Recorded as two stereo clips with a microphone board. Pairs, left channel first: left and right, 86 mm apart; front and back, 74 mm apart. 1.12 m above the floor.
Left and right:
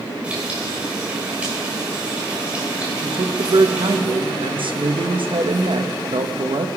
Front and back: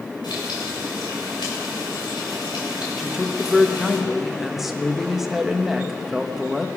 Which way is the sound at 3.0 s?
95° right.